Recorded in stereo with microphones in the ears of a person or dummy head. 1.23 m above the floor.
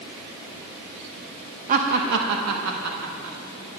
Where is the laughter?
40° right (ahead or behind), 0.9 m; by 3.4 s 75° right (ahead or behind), 1.8 m.